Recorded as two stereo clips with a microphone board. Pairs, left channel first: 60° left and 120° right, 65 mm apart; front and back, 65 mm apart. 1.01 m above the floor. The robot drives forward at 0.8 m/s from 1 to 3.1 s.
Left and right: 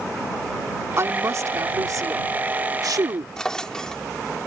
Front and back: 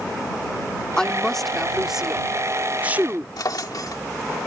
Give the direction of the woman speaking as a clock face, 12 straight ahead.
3 o'clock.